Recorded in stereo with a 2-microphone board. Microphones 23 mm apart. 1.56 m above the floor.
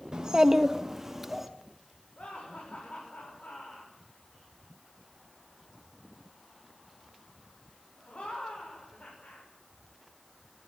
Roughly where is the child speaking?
Right.